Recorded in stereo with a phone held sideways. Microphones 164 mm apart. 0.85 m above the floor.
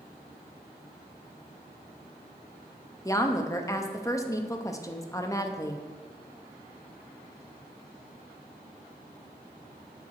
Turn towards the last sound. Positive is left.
turn(degrees=20)  # may be behind; listen again after turning